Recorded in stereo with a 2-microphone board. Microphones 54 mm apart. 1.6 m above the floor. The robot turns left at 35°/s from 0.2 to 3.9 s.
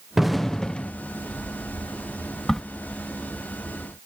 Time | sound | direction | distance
0.2 | an explosion | 5° right (ahead or behind) | ?
2.5 | a crack | 10° left (ahead or behind) | ?